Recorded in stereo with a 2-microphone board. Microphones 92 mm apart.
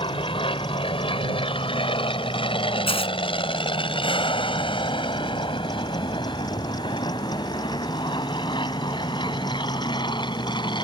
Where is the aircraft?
70° left (ahead or behind); by 10.8 s 55° left (ahead or behind).